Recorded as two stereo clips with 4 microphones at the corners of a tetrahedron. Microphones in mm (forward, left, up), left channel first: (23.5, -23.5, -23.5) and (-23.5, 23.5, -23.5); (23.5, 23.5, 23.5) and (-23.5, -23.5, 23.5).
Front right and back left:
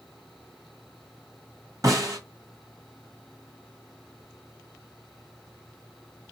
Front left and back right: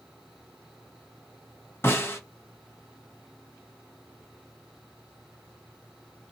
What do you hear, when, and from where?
1.8 s a snare drum: 100° left, 1.2 m